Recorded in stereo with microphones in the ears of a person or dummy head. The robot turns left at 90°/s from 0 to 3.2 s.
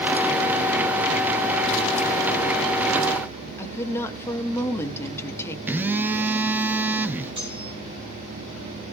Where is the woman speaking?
15° left (ahead or behind), 1.4 m.